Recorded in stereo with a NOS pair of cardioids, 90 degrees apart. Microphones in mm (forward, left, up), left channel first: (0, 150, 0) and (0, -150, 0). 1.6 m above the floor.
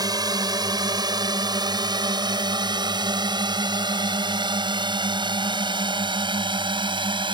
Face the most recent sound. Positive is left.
turn(degrees=-15)